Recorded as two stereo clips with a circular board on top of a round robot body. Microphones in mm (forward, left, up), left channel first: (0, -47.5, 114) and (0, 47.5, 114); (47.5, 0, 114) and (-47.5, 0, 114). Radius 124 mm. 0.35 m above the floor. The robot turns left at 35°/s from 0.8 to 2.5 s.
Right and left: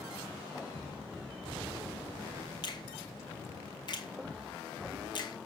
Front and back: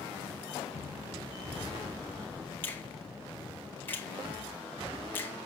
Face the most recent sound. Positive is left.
turn(degrees=-65)